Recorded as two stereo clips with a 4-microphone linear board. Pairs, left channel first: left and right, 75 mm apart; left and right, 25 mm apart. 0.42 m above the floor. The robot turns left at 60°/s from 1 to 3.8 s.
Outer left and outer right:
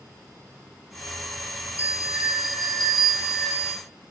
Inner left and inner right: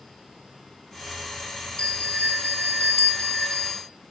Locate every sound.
1.8 s a bell: 140° left, 2.5 m; by 3.8 s 20° left, 2.5 m